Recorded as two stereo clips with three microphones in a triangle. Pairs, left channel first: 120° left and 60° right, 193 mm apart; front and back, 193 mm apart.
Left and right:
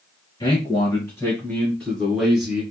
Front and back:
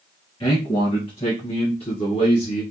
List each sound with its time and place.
0.4 s a man speaking: 60° left, 2 m; by 2.6 s 15° left, 1.5 m